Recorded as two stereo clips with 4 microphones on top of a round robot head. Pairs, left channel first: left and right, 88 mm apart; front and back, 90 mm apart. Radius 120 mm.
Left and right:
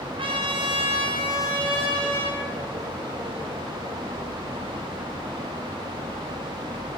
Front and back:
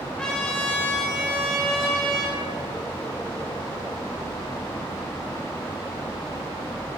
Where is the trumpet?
80° right, 2.5 m.